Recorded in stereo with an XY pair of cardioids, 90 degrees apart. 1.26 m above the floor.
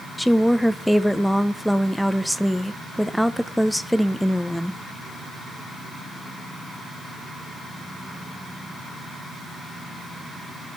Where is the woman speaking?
Straight ahead, 0.8 m.